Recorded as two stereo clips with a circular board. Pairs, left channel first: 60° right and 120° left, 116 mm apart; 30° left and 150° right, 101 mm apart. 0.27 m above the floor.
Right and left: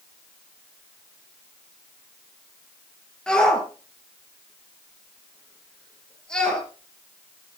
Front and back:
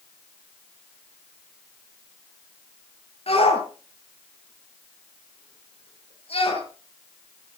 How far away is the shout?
About 6 m.